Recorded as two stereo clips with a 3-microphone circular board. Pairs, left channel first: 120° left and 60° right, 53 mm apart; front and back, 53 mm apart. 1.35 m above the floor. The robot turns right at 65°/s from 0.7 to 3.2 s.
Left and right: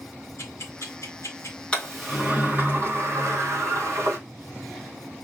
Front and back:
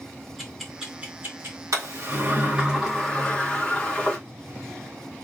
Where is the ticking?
95° left, 2 m; by 1.6 s 150° left, 2 m.